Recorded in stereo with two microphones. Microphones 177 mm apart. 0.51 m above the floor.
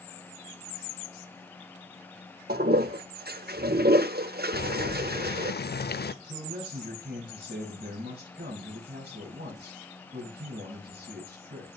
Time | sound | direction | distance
2.5 | a toilet flushing | 65° right (ahead or behind) | 0.6 m
4.5 | boiling | 65° left (ahead or behind) | 0.6 m
6.2 | a man speaking | 70° right (ahead or behind) | 7 m